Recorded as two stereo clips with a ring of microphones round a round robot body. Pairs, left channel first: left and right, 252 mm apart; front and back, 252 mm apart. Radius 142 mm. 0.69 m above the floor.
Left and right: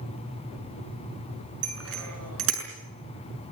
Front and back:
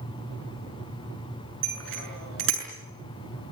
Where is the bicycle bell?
130° right, 6.5 m.